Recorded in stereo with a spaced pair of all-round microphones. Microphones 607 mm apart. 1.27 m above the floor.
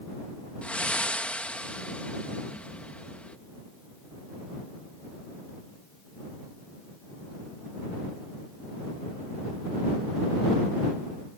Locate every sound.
0.6 s breathing: centre (ahead or behind)